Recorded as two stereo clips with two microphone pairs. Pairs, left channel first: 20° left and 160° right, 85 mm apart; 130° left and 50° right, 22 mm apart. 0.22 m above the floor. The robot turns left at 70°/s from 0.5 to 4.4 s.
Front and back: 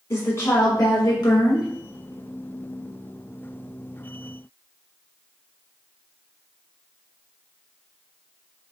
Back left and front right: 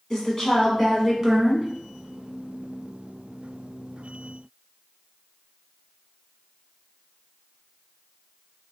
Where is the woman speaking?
70° left, 1.5 m; by 1.7 s 15° right, 1.5 m.